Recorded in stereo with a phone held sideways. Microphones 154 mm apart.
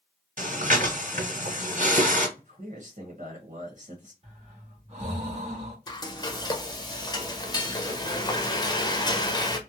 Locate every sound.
0.4 s breathing: 55° right (ahead or behind), 1.8 m
2.4 s a man speaking: 60° right (ahead or behind), 0.9 m
4.2 s breathing: 45° right (ahead or behind), 1.4 m
5.9 s frying: 25° left (ahead or behind), 0.6 m